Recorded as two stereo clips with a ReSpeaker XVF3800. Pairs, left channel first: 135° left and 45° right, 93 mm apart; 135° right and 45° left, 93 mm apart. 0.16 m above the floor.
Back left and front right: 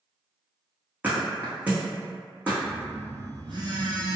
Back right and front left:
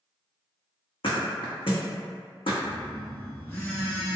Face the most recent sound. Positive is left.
turn(degrees=-65)